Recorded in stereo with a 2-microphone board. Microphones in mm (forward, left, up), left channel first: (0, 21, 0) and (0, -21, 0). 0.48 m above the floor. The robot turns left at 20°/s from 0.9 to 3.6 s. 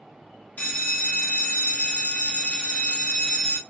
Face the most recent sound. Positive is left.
turn(degrees=35)